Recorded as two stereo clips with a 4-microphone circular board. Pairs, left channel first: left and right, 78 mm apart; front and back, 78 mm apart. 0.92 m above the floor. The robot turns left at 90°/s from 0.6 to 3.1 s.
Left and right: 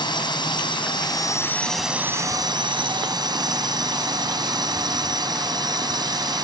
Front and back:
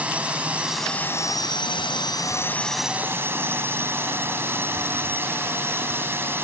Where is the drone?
105° left; by 6.4 s 120° right.